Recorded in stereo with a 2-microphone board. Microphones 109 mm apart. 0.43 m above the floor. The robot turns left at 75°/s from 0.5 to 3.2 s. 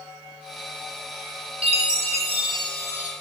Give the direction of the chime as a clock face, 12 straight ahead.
2 o'clock.